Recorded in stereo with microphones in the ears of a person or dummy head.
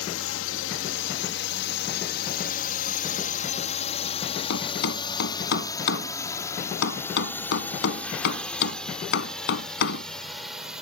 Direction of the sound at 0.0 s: 70° left (ahead or behind).